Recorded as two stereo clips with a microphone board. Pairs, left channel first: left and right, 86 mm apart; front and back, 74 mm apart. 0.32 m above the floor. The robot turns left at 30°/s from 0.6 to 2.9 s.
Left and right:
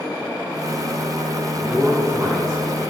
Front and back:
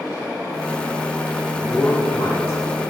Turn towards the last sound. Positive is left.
turn(degrees=-20)